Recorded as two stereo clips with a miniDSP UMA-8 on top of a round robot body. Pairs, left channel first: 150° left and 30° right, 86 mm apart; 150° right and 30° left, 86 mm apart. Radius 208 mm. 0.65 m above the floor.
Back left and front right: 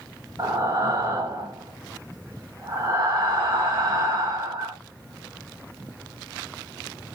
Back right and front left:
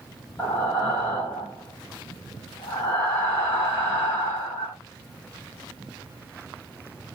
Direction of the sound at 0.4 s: 85° right.